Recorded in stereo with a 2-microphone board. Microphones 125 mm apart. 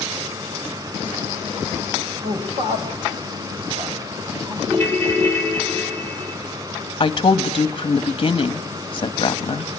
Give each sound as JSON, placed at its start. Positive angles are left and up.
{"t": 2.2, "sound": "a man speaking", "side_deg": -65, "distance_m": 5.5}
{"t": 4.7, "sound": "a ringtone", "side_deg": -50, "distance_m": 5.5}
{"t": 7.0, "sound": "a woman speaking", "side_deg": 40, "distance_m": 1.5}